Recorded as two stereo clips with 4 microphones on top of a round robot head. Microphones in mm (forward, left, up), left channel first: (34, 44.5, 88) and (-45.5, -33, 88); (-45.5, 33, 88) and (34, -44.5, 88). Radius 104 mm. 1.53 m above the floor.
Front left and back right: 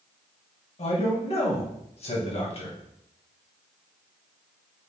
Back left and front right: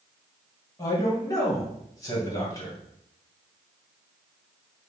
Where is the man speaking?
75° left, 2 m.